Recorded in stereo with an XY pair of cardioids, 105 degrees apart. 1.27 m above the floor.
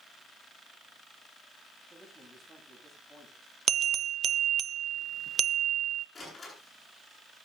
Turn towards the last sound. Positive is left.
turn(degrees=25)